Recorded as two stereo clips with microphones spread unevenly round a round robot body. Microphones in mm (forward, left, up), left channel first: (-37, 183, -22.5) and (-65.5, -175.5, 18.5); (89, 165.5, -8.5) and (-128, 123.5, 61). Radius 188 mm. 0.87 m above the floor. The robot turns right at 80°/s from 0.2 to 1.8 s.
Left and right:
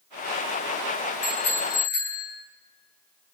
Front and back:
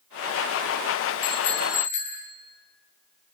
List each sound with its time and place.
1.2 s a bicycle bell: 25° left, 10 m; by 2.2 s 70° left, 10 m